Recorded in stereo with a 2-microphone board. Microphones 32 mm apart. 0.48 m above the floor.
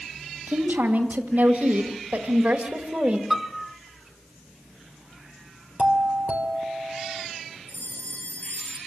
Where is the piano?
5° right (ahead or behind), 0.8 m.